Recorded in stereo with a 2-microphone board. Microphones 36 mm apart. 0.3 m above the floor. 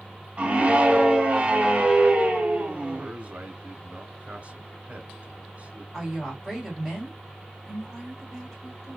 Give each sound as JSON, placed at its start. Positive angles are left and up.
{"t": 0.4, "sound": "a scream", "side_deg": -35, "distance_m": 1.1}
{"t": 3.0, "sound": "a man speaking", "side_deg": -35, "distance_m": 1.4}
{"t": 5.9, "sound": "a woman speaking", "side_deg": 5, "distance_m": 1.8}